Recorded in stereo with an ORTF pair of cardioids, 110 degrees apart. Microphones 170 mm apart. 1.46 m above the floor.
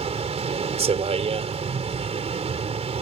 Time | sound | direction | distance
0.0 | a vehicle | 35° right | ?